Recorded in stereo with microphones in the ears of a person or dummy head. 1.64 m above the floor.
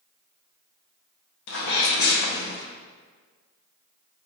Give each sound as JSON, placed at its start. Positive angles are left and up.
{"t": 1.5, "sound": "a sneeze", "side_deg": 55, "distance_m": 0.8}